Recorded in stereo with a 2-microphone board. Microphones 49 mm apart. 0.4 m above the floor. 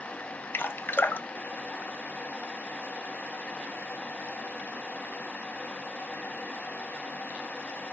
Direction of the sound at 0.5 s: 45° left (ahead or behind).